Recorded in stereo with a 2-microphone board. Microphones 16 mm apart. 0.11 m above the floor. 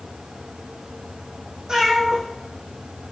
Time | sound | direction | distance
1.7 | a cat meowing | 55° right (ahead or behind) | 3 m